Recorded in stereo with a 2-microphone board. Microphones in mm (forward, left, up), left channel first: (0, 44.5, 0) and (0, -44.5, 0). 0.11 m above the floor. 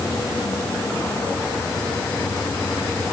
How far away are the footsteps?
I don't hear footsteps.